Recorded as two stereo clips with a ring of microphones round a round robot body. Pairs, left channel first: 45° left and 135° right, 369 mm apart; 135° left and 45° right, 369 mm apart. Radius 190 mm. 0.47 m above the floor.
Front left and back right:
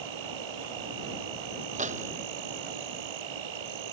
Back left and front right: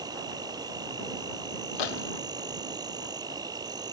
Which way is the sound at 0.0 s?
125° right.